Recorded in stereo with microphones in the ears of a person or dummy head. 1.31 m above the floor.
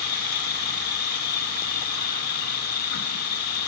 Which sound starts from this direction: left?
An insect, at 0.0 s.